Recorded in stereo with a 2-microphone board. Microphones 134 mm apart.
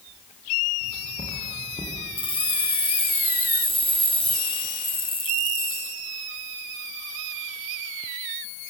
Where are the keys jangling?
40° left (ahead or behind), 3.5 m.